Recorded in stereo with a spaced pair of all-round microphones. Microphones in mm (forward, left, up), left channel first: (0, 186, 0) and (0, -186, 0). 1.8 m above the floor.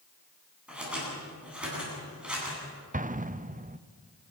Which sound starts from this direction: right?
An explosion, at 2.9 s.